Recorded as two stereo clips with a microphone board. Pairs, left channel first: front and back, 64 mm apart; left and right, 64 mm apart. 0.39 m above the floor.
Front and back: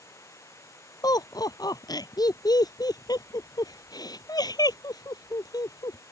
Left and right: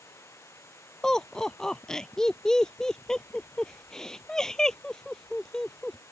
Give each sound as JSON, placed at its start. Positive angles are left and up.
{"t": 0.0, "sound": "running water", "azimuth_deg": 40}
{"t": 1.0, "sound": "laughter", "azimuth_deg": 10}